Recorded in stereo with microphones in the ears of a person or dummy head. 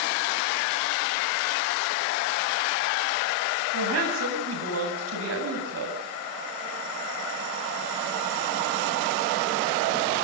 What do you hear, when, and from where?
3.7 s a woman speaking: 80° right, 7.5 m